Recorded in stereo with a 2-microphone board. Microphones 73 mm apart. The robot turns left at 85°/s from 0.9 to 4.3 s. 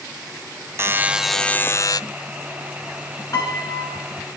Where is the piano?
125° left, 5 m; by 4.0 s 65° left, 5 m.